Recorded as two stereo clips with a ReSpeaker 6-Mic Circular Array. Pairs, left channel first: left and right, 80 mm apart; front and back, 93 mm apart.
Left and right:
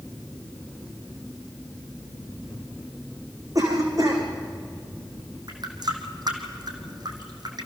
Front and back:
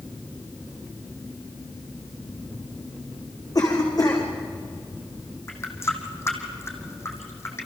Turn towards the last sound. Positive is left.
turn(degrees=-60)